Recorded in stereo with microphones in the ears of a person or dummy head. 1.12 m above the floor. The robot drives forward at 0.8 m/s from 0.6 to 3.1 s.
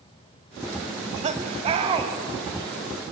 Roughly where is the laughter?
Right.